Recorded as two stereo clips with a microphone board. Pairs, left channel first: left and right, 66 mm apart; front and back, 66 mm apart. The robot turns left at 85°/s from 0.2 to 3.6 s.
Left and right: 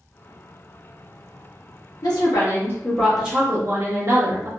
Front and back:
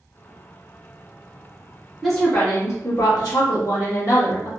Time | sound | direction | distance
2.0 | a woman speaking | 90° left | 1.3 m